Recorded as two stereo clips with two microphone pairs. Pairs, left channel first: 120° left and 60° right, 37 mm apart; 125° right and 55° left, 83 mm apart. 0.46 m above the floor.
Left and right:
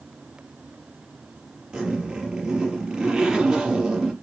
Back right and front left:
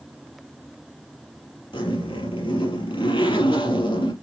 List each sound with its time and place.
1.7 s a zipper: 130° right, 5 m